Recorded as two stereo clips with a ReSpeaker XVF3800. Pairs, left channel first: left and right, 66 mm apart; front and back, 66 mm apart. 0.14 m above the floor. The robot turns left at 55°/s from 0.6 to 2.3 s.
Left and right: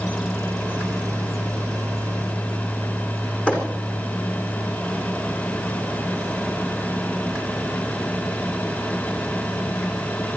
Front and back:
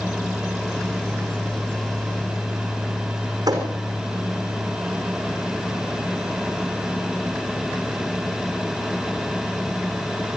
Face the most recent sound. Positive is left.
turn(degrees=160)